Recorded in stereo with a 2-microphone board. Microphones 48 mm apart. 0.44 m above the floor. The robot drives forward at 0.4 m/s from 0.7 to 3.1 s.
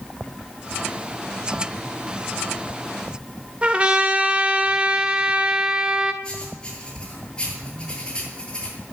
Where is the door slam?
No door slam in this recording.